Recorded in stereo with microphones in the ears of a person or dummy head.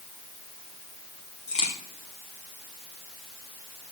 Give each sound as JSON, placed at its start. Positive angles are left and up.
{"t": 1.5, "sound": "a crack", "side_deg": 30, "distance_m": 1.8}